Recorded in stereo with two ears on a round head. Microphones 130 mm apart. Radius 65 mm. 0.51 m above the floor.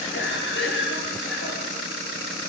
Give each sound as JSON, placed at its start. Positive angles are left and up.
{"t": 0.1, "sound": "a cough", "side_deg": 80, "distance_m": 7.5}